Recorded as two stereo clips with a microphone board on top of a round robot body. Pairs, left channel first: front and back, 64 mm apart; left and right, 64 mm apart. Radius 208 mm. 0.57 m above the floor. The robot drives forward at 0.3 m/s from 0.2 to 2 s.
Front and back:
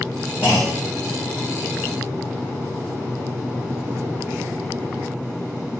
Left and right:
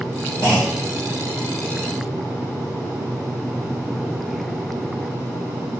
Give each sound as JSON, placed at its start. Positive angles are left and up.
{"t": 0.4, "sound": "a clunk", "azimuth_deg": 60, "distance_m": 0.5}